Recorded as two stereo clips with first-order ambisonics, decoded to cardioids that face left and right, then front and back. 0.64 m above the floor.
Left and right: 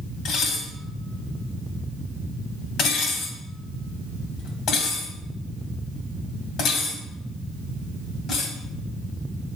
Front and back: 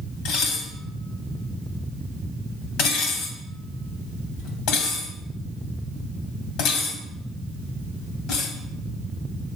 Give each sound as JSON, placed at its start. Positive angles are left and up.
{"t": 0.2, "sound": "dishes clattering", "azimuth_deg": 35, "distance_m": 2.5}